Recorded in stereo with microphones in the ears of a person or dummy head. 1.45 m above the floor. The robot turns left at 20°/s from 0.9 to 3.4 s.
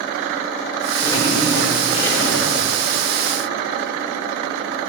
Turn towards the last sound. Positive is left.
turn(degrees=110)